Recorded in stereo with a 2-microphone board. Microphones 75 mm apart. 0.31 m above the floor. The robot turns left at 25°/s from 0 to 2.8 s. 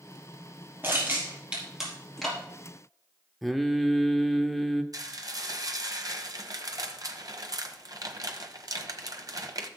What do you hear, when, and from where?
0.8 s crushing: 30° right (ahead or behind), 4 m; by 2.4 s 10° left (ahead or behind), 4 m
3.4 s singing: centre (ahead or behind), 0.9 m
4.9 s dishes clattering: 55° right (ahead or behind), 1.2 m